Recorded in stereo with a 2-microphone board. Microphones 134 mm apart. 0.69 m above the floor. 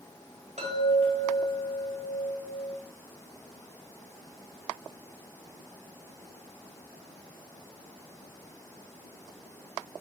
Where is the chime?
55° right (ahead or behind), 2.5 m.